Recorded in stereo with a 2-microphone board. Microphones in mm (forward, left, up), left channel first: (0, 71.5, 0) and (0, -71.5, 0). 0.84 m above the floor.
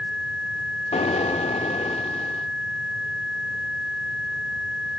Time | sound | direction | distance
0.9 | an explosion | 50° left (ahead or behind) | 0.7 m